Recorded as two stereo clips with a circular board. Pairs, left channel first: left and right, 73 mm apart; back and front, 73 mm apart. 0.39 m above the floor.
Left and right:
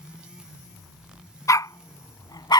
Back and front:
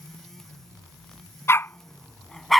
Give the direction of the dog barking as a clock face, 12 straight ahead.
8 o'clock.